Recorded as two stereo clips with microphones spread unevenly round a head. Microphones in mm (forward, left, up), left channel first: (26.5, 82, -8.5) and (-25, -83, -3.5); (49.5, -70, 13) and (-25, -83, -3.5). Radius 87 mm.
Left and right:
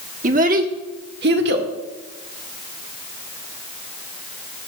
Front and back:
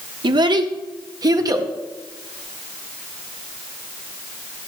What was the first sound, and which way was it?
A child speaking, 155° right.